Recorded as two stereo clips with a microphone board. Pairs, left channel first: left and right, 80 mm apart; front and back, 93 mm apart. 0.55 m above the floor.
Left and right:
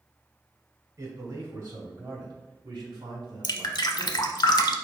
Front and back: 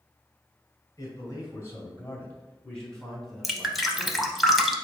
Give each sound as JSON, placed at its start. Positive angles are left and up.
{"t": 1.0, "sound": "a man speaking", "azimuth_deg": -50, "distance_m": 2.0}
{"t": 3.4, "sound": "dripping", "azimuth_deg": 90, "distance_m": 0.6}